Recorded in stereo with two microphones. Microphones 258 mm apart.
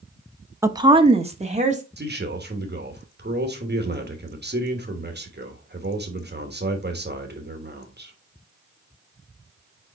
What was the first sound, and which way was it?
A woman speaking, 10° right (ahead or behind).